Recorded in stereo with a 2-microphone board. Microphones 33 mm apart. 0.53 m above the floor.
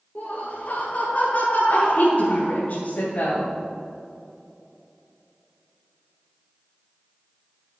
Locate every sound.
0.1 s laughter: 60° left (ahead or behind), 2 m
1.7 s a woman speaking: 55° left (ahead or behind), 3 m